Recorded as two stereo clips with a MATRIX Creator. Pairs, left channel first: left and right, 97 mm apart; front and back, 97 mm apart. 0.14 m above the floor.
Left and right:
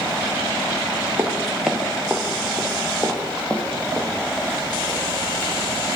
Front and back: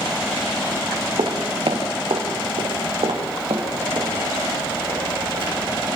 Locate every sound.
1.2 s footsteps: 160° right, 3 m; by 5.9 s 150° left, 7.5 m